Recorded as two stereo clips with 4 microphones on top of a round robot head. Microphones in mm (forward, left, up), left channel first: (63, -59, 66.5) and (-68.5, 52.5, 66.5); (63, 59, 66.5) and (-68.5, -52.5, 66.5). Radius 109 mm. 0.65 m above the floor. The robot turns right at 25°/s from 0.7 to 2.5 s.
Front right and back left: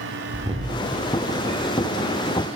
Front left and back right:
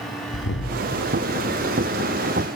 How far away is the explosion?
About 0.5 m.